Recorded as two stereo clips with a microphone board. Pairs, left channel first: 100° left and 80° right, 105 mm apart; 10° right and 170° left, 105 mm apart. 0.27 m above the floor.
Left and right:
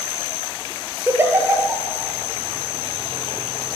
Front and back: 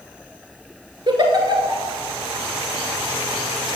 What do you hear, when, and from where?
1.1 s a giggle: 145° right, 1.1 m